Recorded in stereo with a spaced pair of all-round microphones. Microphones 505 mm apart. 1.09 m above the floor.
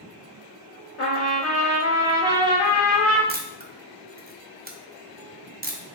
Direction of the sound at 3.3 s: 20° right (ahead or behind).